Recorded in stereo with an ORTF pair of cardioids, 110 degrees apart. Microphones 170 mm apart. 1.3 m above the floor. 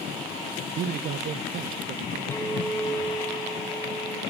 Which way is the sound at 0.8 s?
60° right.